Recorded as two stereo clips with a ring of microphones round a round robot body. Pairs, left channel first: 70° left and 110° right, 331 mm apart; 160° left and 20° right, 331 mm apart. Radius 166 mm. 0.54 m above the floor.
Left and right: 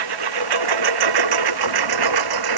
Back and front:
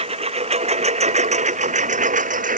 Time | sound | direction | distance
0.0 | a lawn mower | 95° right | ?